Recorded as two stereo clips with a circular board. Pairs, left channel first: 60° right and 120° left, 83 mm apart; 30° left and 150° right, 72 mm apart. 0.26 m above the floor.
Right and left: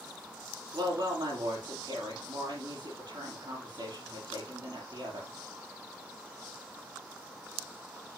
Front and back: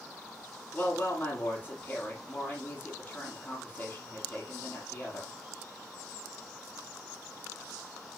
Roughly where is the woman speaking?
Left.